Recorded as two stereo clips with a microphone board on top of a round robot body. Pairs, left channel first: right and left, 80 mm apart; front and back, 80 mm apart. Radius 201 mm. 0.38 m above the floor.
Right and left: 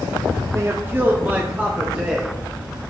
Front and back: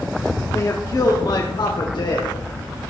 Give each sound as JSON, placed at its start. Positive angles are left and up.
{"t": 0.5, "sound": "a man speaking", "azimuth_deg": 45, "distance_m": 1.3}